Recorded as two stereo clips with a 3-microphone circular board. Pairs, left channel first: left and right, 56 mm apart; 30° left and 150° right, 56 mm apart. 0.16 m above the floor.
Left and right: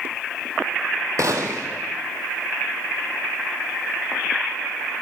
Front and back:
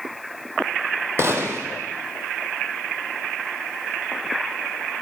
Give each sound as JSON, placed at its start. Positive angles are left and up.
{"t": 1.2, "sound": "a gunshot", "azimuth_deg": -110, "distance_m": 1.1}